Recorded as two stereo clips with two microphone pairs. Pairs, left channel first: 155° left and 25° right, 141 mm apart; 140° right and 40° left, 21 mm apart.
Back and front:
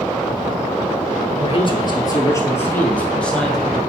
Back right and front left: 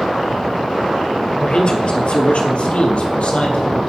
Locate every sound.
1.4 s a man speaking: 170° right, 2 m; by 3.8 s 120° right, 3 m